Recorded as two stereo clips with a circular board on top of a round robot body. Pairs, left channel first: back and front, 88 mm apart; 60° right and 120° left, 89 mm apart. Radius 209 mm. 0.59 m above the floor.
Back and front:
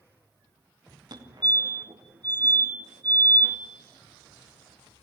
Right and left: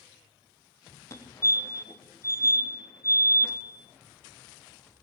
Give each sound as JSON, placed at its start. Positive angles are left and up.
{"t": 1.1, "sound": "a fire alarm", "azimuth_deg": -10, "distance_m": 3.0}